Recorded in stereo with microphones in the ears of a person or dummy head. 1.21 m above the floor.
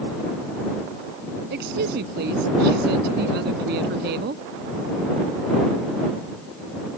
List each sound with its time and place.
1.5 s a woman speaking: 60° right (ahead or behind)